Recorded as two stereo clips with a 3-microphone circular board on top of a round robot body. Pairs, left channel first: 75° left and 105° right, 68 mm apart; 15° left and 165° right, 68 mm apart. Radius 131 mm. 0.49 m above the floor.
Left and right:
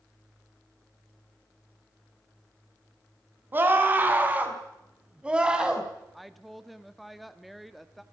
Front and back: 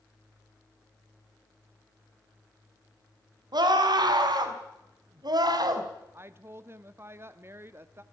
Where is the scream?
165° right, 5 m; by 5.9 s 175° left, 4 m.